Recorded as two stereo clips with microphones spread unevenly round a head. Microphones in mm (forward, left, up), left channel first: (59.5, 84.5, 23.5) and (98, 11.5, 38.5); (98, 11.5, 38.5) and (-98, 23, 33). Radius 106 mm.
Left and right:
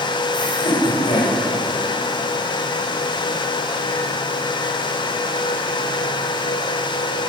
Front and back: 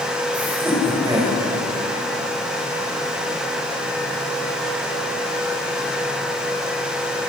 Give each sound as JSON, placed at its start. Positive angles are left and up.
{"t": 0.3, "sound": "laughter", "azimuth_deg": 90, "distance_m": 4.5}